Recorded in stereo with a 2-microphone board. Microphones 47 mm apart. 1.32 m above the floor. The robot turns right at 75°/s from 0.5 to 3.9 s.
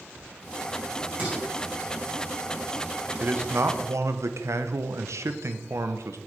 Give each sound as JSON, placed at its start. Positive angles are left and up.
{"t": 1.2, "sound": "dishes clattering", "side_deg": -35, "distance_m": 5.0}
{"t": 3.2, "sound": "a man speaking", "azimuth_deg": -145, "distance_m": 0.9}